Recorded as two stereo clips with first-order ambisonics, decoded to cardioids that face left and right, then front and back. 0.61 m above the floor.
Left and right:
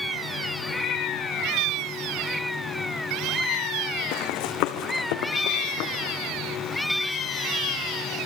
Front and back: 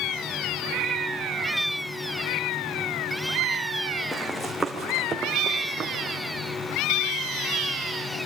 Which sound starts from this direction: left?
Running footsteps, at 4.1 s.